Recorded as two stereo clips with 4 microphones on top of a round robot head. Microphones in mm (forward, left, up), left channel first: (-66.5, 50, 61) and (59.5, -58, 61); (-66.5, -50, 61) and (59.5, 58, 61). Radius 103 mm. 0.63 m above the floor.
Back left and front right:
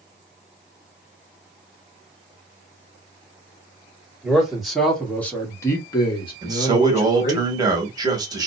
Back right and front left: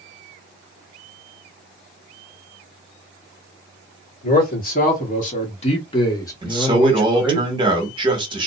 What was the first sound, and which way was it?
A man speaking, 125° right.